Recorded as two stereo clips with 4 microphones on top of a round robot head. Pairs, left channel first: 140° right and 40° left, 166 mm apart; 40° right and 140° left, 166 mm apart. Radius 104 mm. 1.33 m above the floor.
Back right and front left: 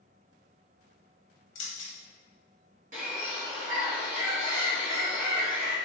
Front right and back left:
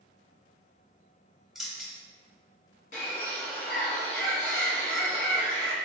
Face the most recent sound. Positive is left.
turn(degrees=0)